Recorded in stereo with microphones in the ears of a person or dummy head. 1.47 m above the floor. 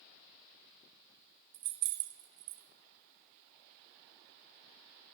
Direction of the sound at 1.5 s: 50° right (ahead or behind).